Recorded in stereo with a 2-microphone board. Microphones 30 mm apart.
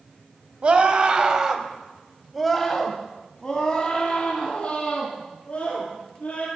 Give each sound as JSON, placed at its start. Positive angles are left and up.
{"t": 0.6, "sound": "a scream", "side_deg": -40, "distance_m": 1.2}